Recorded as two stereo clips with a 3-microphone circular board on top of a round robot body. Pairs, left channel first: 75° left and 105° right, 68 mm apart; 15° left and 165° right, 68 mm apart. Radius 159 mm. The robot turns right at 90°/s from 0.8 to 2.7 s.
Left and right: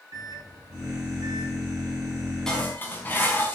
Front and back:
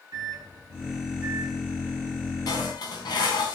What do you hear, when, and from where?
0.1 s a microwave: 140° right, 7.5 m; by 1.6 s 70° right, 7.5 m
2.5 s dishes clattering: 10° right, 4 m; by 3.5 s 15° left, 4 m